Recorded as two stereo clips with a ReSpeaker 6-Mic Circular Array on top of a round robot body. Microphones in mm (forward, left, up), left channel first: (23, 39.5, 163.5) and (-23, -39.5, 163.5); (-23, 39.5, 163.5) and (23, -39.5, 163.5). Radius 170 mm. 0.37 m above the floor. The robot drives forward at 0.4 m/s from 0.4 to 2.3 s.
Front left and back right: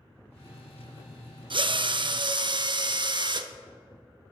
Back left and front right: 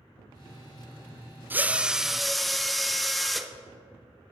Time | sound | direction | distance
1.5 | a drill | 125° right | 0.5 m